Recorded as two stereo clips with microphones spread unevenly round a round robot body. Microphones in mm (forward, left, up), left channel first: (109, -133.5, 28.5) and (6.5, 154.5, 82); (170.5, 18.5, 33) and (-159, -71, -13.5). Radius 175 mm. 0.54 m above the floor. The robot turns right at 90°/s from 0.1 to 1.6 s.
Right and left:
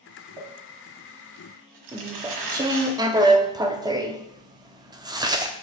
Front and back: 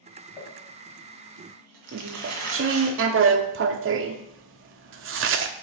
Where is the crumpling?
35° left, 1.6 m; by 2.9 s 145° left, 1.6 m.